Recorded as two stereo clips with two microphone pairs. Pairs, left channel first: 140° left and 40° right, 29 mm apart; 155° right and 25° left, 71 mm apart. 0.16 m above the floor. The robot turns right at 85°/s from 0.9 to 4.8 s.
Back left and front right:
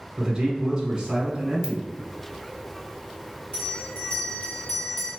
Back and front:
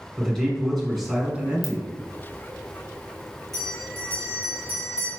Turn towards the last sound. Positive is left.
turn(degrees=-135)